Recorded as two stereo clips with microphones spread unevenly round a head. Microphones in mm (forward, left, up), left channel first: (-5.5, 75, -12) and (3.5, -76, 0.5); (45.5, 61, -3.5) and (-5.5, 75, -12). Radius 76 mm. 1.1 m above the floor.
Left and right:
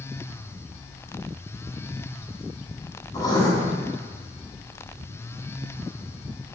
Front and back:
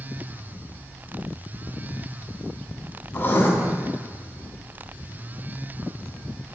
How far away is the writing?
About 2.5 m.